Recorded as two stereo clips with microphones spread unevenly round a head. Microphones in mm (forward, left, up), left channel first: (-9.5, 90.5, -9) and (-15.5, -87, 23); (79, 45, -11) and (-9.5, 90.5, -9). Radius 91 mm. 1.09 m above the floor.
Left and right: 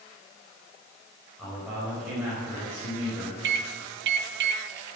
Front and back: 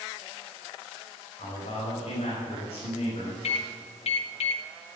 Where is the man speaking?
10° right, 5 m.